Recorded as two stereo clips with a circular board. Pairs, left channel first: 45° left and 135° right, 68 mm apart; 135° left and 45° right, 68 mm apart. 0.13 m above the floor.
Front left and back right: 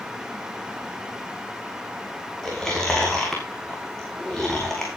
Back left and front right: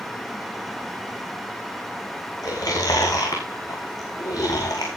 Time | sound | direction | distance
2.4 | chewing | 125° left | 6 m